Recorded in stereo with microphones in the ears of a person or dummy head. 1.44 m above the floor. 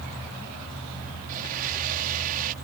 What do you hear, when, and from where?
1.3 s a blender: 45° right (ahead or behind)